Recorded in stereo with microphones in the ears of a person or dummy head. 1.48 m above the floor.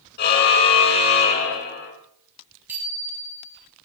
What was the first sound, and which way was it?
A car horn, 50° left (ahead or behind).